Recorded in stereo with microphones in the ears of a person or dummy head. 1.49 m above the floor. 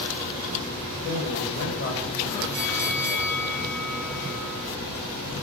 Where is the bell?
10° left (ahead or behind), 4.5 m.